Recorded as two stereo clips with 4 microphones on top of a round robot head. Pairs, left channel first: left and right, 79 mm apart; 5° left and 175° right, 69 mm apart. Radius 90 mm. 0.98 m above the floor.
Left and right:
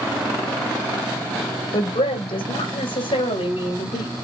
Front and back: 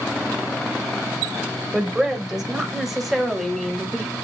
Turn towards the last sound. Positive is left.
turn(degrees=95)